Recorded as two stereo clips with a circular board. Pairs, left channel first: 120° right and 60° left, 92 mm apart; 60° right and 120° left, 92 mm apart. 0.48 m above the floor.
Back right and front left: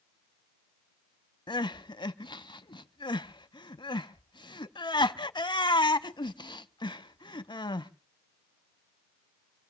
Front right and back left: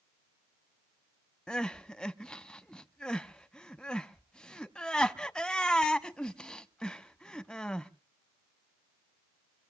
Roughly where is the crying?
Behind right.